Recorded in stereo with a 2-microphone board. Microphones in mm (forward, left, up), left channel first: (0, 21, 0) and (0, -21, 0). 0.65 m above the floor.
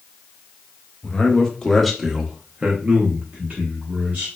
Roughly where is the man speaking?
Left.